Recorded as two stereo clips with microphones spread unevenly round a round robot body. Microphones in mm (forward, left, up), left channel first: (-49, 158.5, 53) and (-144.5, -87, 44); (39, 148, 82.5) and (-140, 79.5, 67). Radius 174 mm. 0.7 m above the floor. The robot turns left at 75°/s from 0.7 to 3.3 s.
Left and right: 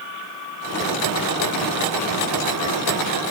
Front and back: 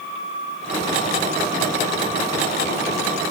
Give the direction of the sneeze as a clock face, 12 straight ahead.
I don't hear a sneeze.